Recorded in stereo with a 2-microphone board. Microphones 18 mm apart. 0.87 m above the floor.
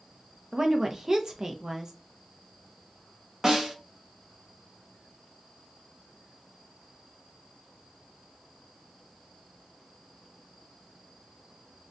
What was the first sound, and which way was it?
A woman speaking, 30° right (ahead or behind).